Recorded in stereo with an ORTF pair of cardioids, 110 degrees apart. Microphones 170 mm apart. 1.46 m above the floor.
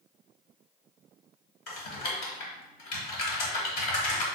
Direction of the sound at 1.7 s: 65° left.